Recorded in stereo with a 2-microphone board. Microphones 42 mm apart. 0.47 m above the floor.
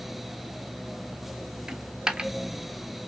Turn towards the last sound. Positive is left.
turn(degrees=-20)  # may be behind; listen again after turning